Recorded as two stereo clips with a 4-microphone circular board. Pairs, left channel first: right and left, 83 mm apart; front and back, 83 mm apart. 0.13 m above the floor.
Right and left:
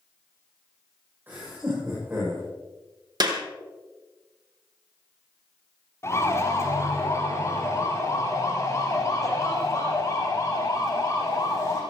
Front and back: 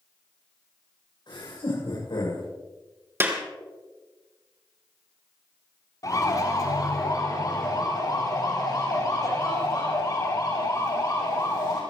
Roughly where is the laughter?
Ahead left.